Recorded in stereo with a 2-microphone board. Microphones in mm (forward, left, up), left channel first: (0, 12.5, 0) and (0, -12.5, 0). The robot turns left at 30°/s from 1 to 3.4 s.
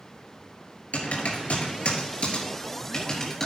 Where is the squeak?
I don't hear a squeak.